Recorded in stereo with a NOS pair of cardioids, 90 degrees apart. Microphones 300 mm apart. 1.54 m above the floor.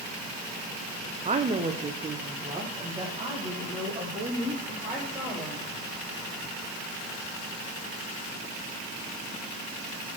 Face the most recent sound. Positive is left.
turn(degrees=-15)